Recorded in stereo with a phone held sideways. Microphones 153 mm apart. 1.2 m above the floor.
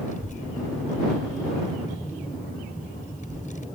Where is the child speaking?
55° left (ahead or behind).